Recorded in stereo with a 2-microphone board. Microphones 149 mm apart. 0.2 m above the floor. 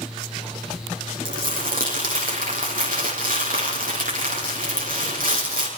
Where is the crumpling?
80° right, 6.5 m.